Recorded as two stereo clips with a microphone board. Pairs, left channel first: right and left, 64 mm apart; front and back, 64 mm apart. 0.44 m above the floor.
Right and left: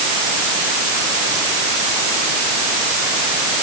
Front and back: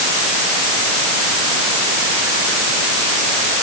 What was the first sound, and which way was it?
Only background noise.